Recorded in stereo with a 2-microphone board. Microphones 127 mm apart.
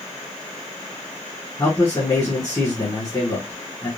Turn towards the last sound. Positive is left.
turn(degrees=25)  # may be behind; listen again after turning